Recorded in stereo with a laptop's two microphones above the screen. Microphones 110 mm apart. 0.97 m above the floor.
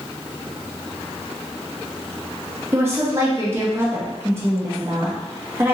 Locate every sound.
2.7 s a woman speaking: 25° right (ahead or behind), 1.1 m